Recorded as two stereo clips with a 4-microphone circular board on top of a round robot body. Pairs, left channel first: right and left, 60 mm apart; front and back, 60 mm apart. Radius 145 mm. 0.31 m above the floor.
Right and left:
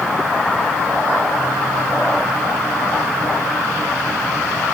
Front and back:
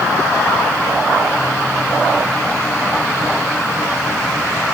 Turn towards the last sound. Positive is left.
No sound to turn to.